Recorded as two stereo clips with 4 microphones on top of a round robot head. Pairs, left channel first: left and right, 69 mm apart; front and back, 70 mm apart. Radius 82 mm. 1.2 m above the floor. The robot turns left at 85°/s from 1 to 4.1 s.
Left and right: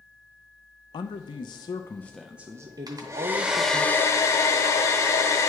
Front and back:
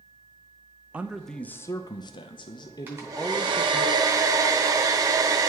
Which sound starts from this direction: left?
A man speaking, at 0.9 s.